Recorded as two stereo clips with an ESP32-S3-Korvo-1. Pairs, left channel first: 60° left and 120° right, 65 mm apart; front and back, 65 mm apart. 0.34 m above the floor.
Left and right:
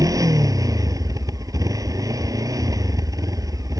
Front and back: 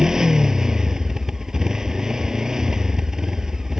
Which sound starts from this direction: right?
A motorcycle, at 0.0 s.